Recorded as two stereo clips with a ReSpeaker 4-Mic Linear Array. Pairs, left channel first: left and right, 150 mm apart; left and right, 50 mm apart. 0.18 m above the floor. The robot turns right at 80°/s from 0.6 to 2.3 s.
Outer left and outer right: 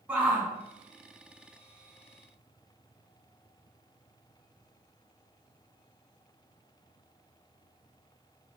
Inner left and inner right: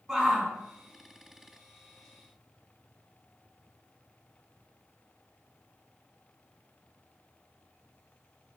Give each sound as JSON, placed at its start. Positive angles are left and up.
{"t": 0.1, "sound": "a shout", "side_deg": -10, "distance_m": 1.4}